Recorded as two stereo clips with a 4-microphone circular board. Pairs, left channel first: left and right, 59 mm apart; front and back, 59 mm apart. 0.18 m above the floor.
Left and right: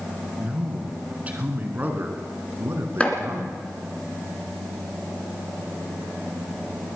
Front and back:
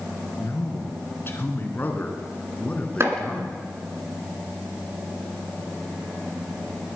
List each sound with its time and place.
0.4 s a man speaking: 20° right, 2.5 m; by 3.7 s 75° right, 2.5 m
3.0 s chopping: 155° left, 2 m